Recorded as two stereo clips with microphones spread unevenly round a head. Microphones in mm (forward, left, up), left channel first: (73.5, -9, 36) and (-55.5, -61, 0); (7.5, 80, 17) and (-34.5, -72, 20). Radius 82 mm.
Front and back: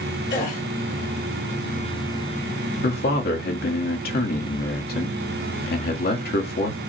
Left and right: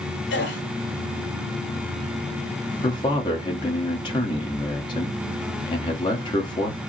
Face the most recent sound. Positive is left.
turn(degrees=15)